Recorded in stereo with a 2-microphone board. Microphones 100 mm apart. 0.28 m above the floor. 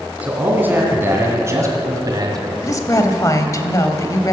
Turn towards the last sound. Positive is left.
turn(degrees=35)  # may be behind; listen again after turning